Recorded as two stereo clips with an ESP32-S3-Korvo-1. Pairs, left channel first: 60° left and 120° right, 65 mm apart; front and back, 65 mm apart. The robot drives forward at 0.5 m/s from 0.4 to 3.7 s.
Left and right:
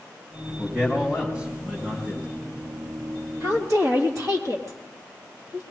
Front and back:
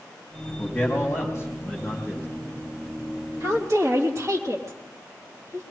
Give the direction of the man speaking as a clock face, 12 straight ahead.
2 o'clock.